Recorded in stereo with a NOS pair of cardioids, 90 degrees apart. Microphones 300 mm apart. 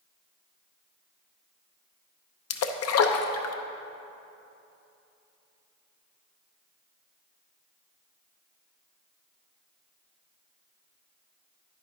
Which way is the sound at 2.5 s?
55° left.